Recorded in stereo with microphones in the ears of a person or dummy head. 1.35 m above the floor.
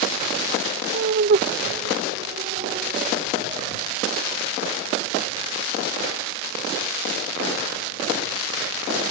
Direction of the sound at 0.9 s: 55° right (ahead or behind).